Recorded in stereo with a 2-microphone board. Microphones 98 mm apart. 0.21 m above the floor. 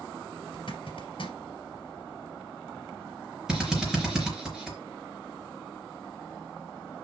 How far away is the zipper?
About 2.5 m.